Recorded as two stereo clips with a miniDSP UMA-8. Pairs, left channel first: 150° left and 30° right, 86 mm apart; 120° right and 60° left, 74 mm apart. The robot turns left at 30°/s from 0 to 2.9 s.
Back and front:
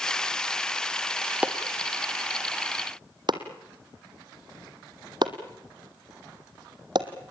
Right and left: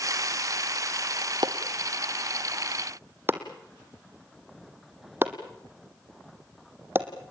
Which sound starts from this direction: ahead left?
Chopping, at 1.4 s.